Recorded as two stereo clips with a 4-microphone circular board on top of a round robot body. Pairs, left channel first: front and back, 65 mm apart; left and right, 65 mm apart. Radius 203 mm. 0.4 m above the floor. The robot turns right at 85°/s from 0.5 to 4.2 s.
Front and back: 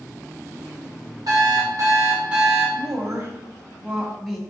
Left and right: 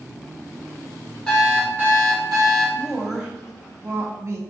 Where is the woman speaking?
155° left, 1.5 m; by 4.4 s 85° right, 1.5 m.